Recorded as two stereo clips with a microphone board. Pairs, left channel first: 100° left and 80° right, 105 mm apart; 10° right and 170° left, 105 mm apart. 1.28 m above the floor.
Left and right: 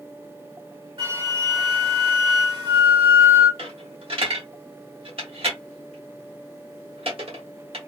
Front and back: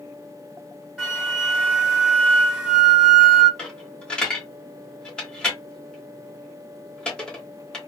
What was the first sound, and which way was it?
A flute, 110° right.